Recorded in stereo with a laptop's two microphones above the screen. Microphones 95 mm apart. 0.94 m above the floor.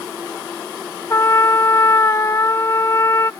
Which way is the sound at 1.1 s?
35° left (ahead or behind).